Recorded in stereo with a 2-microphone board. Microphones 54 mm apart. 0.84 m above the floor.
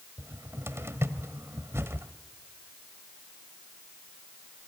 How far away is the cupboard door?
About 1.5 m.